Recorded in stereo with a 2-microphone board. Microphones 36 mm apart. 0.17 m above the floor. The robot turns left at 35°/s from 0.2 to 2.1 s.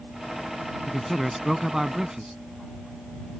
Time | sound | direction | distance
0.9 | a man speaking | 5° left (ahead or behind) | ?